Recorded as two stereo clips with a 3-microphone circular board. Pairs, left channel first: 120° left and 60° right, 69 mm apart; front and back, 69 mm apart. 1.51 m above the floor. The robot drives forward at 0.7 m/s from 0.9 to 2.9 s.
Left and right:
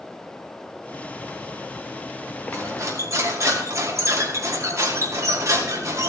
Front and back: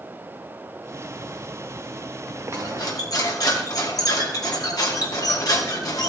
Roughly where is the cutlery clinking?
Ahead.